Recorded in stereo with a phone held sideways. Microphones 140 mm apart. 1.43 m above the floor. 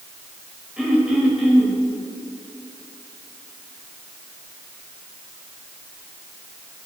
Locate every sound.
0.8 s throat clearing: 5° right (ahead or behind), 4.5 m